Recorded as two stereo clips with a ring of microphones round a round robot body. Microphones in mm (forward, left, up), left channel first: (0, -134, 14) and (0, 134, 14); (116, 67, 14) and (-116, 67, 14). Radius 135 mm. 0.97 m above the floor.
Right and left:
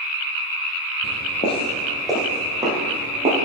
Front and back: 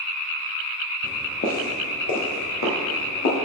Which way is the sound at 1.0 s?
70° right.